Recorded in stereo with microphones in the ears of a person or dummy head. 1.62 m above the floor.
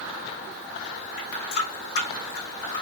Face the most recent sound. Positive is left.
turn(degrees=50)  # may be behind; listen again after turning